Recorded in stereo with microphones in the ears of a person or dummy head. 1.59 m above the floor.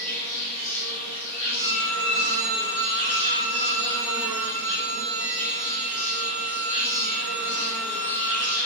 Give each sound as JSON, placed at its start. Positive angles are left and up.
{"t": 0.0, "sound": "an insect", "side_deg": -35, "distance_m": 1.2}
{"t": 1.6, "sound": "a violin", "side_deg": -35, "distance_m": 1.6}